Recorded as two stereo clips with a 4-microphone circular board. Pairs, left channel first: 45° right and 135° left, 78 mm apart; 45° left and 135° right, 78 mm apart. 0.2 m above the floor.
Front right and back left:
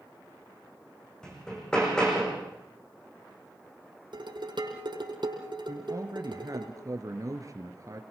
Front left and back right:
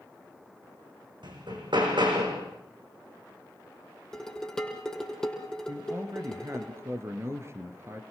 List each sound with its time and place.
1.2 s hammering: 125° right, 7.5 m
4.1 s dishes clattering: 130° left, 5 m
5.7 s a man speaking: 175° left, 3 m